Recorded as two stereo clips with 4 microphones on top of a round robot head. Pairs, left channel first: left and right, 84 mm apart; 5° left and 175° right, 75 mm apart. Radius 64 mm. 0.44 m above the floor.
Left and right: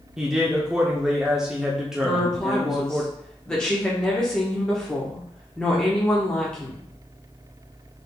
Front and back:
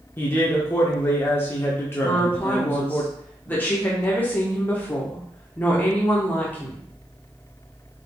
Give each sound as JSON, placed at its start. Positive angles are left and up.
{"t": 0.2, "sound": "a man speaking", "azimuth_deg": -10, "distance_m": 0.8}
{"t": 2.0, "sound": "a woman speaking", "azimuth_deg": 25, "distance_m": 1.0}